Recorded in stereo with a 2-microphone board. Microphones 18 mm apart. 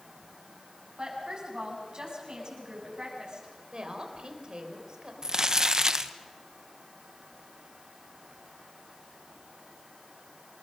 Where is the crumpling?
35° right (ahead or behind), 1.1 m.